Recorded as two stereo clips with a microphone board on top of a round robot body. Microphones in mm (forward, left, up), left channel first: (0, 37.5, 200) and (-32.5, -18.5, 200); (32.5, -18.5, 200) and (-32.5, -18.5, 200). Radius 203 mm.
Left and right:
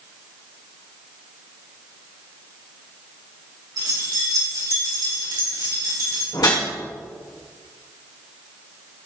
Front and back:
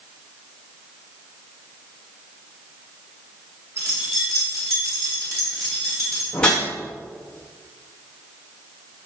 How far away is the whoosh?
About 2.5 m.